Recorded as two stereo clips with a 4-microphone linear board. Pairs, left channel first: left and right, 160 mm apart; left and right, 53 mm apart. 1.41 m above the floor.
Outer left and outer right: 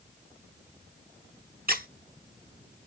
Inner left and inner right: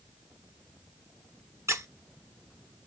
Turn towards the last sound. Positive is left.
turn(degrees=-65)  # may be behind; listen again after turning